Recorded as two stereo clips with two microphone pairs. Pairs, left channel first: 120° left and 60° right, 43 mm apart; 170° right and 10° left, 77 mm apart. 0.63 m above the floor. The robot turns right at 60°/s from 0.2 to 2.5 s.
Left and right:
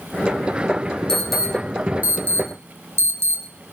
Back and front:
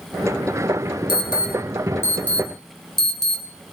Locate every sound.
1.1 s an alarm: 165° right, 5 m; by 3.7 s 80° right, 5 m